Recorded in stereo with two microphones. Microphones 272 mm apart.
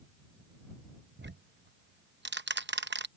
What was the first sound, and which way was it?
Ticking, 40° right (ahead or behind).